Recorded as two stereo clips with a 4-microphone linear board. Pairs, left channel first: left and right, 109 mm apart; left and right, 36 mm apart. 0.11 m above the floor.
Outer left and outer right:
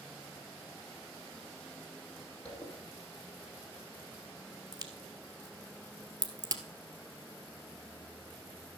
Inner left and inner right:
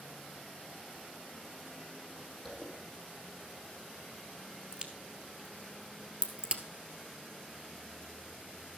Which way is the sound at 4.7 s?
35° right (ahead or behind).